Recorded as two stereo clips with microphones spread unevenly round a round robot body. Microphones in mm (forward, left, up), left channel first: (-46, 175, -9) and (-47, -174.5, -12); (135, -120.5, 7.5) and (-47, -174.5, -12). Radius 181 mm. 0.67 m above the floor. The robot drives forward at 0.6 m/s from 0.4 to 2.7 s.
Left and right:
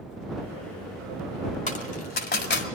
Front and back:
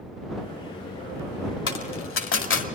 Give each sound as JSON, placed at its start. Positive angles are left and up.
{"t": 1.7, "sound": "a dropped coin", "azimuth_deg": 20, "distance_m": 2.0}